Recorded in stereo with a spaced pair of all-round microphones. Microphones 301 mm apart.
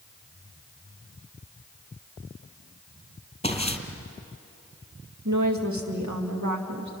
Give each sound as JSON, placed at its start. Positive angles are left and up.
{"t": 3.4, "sound": "footsteps", "side_deg": 20, "distance_m": 1.9}
{"t": 5.2, "sound": "a woman speaking", "side_deg": -65, "distance_m": 2.0}